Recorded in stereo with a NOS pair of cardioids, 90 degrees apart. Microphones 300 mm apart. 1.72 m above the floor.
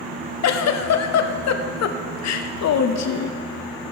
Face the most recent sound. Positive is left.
turn(degrees=60)